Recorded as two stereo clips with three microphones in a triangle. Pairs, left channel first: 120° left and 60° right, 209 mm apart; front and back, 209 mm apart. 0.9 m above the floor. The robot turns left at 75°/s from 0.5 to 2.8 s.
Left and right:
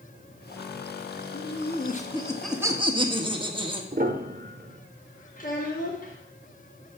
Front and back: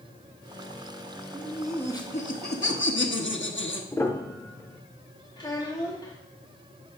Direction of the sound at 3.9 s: 75° right.